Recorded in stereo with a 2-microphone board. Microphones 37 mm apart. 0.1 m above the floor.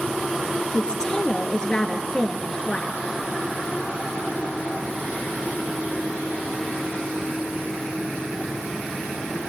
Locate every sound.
0.7 s a woman speaking: 20° left (ahead or behind), 1.8 m